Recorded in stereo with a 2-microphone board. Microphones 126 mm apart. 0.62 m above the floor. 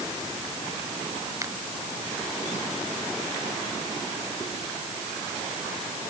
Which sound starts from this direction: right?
A finger snap, at 1.4 s.